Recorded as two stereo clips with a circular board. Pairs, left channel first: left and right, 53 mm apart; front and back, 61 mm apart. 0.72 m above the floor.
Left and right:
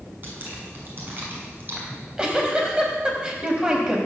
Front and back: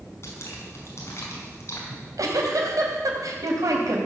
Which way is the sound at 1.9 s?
160° right.